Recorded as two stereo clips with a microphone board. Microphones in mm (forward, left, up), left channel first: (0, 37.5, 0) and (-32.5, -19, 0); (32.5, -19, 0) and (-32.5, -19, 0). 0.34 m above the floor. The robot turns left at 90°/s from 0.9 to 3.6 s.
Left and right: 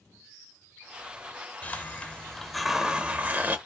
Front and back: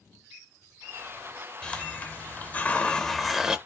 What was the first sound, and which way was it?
A hiss, 60° left.